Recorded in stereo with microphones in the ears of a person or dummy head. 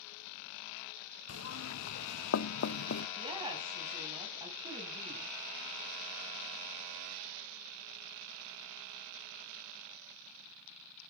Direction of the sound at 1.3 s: 80° left.